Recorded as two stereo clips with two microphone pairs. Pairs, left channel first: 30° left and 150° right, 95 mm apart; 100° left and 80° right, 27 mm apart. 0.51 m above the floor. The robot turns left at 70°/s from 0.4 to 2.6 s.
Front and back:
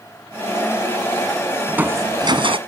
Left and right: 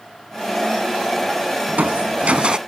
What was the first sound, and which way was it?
Crushing, 70° right.